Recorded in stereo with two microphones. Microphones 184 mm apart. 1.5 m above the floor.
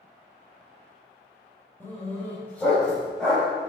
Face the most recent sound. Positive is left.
turn(degrees=0)  # may be behind; listen again after turning